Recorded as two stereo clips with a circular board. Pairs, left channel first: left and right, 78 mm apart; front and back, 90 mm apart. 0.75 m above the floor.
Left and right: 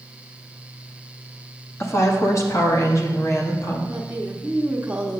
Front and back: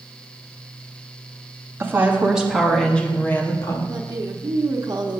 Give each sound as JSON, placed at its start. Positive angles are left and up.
{"t": 1.8, "sound": "a woman speaking", "azimuth_deg": 125, "distance_m": 1.3}
{"t": 3.9, "sound": "a woman speaking", "azimuth_deg": -155, "distance_m": 1.0}